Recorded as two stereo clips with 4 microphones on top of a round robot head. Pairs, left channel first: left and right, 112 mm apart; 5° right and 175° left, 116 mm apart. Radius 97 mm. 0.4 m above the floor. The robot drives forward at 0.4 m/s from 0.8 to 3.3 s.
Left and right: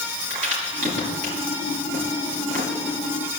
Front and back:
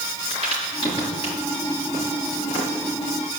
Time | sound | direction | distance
0.3 | a crack | 65° right | 6 m